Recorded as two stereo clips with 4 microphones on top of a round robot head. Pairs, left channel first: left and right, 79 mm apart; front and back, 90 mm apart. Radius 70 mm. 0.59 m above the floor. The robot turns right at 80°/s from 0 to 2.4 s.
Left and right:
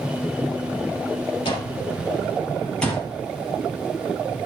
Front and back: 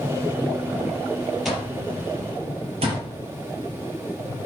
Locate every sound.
1.4 s an alarm clock: 95° left, 6.5 m; by 3.0 s 170° left, 6.5 m